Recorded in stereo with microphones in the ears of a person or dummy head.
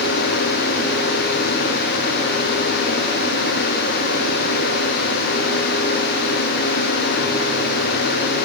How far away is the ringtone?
No ringtone in this recording.